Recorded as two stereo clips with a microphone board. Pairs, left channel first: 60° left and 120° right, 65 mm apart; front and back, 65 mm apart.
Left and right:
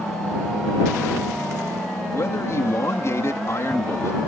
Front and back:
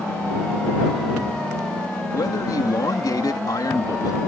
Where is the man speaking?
20° left.